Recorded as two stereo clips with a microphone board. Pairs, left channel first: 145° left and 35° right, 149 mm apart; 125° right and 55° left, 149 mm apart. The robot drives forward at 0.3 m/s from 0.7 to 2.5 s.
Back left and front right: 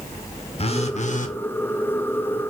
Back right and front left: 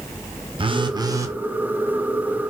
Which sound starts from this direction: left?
A phone buzzing, at 0.6 s.